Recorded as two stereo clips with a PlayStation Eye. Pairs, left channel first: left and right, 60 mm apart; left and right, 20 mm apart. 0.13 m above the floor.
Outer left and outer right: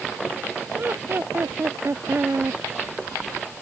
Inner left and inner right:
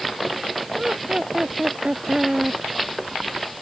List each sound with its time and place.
0.8 s laughter: 40° right (ahead or behind)